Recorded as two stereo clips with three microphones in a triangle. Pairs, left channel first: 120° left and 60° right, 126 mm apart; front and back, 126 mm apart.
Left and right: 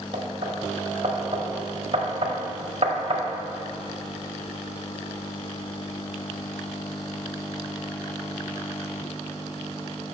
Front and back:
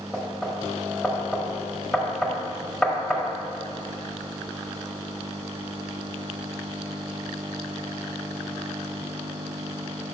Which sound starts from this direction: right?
Knocking, at 0.1 s.